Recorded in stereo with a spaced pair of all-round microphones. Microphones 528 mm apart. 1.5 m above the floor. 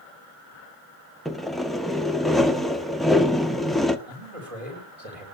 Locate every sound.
1.2 s sawing: centre (ahead or behind), 1.0 m
4.1 s a man speaking: 85° right, 8.5 m